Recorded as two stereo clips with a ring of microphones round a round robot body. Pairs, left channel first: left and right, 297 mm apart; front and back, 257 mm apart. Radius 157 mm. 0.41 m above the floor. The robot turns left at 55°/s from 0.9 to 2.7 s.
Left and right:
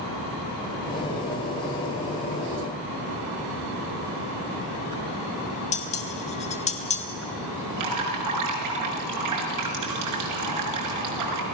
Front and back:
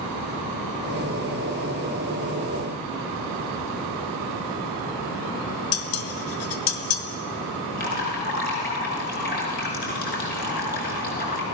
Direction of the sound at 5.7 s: 20° left.